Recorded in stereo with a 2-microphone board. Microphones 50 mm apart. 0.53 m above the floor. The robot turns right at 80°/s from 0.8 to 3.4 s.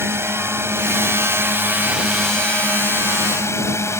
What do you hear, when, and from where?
0.0 s a drone: 115° right; by 4.0 s 95° left